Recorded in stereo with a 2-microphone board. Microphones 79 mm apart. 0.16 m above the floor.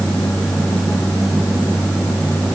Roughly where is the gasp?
No gasp in this recording.